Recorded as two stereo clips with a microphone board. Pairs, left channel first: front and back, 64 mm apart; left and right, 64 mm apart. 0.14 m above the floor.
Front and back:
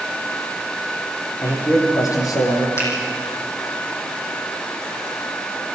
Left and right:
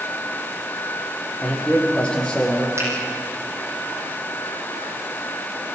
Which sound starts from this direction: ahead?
A man speaking, at 1.4 s.